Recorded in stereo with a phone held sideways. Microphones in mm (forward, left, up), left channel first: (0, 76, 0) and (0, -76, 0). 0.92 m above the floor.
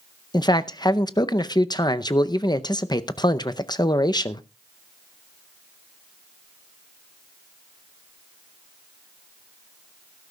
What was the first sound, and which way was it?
A man speaking, 30° left (ahead or behind).